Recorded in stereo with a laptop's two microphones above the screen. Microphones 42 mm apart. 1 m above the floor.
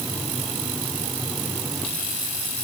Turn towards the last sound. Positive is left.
No sound to turn to.